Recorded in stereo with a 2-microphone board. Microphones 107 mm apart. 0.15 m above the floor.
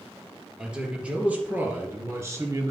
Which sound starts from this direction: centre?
A man speaking, at 0.6 s.